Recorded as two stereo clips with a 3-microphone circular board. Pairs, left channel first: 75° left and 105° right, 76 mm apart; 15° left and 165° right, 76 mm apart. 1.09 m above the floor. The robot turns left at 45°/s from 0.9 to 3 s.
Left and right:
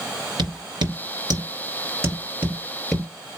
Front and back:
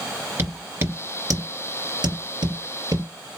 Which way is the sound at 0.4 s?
105° right.